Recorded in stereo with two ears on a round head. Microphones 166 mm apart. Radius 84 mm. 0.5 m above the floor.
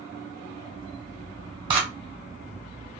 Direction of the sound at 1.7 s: 25° right (ahead or behind).